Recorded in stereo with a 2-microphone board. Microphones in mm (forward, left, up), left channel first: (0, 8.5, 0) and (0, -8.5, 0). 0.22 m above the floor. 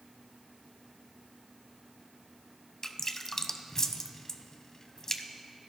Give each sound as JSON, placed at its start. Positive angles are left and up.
{"t": 2.8, "sound": "dripping", "side_deg": 35, "distance_m": 0.6}